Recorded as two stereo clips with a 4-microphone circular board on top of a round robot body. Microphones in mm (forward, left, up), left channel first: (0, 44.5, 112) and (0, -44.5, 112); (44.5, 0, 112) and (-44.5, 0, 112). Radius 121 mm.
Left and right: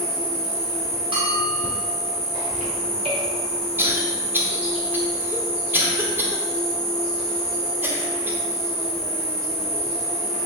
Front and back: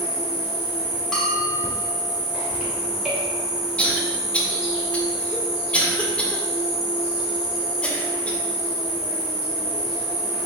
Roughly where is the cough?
Ahead right.